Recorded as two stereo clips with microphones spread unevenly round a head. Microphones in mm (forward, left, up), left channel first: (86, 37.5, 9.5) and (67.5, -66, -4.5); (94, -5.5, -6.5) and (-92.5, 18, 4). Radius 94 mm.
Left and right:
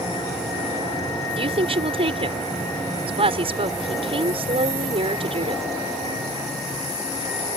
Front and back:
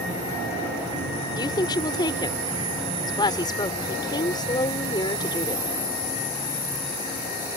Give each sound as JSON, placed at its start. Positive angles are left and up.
{"t": 1.4, "sound": "a woman speaking", "azimuth_deg": -75}